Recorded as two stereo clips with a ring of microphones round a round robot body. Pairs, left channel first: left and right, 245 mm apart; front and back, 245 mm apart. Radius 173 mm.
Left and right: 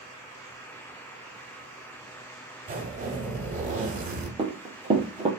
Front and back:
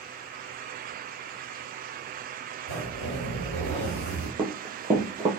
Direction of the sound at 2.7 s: 30° right.